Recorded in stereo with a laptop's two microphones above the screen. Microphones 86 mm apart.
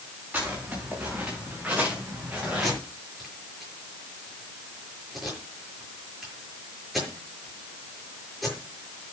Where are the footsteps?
20° right (ahead or behind), 6.5 m; by 2.7 s 15° right (ahead or behind), 5.5 m.